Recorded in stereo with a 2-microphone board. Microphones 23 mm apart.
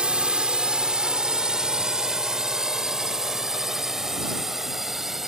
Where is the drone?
45° right (ahead or behind); by 5.3 s 10° right (ahead or behind).